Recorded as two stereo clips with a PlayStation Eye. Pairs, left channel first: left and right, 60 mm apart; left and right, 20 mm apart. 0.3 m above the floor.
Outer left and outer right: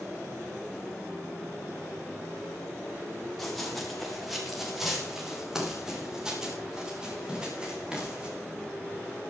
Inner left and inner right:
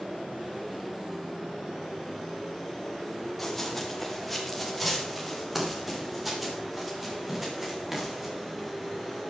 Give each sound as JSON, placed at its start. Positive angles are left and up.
{"t": 3.4, "sound": "running footsteps", "side_deg": 5, "distance_m": 6.0}